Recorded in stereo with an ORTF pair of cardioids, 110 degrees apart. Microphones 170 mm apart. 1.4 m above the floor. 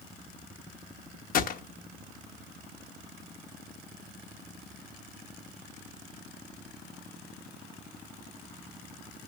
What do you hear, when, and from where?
1.3 s a gunshot: 55° left, 0.9 m